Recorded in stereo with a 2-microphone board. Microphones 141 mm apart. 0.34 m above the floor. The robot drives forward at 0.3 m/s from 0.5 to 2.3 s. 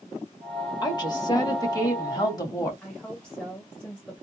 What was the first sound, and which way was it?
A woman speaking, 30° left (ahead or behind).